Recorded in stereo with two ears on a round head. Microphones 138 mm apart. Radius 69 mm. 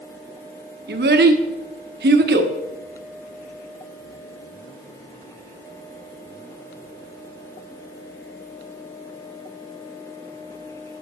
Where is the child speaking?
75° right (ahead or behind), 1.3 m.